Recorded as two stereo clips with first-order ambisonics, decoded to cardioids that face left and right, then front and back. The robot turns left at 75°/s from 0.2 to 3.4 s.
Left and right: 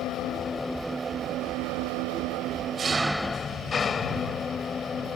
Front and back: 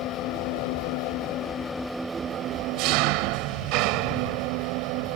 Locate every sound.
0.0 s an engine running: 40° left; by 5.2 s 160° left